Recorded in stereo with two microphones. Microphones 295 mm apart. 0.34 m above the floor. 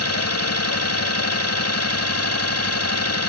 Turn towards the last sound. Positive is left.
turn(degrees=55)  # may be behind; listen again after turning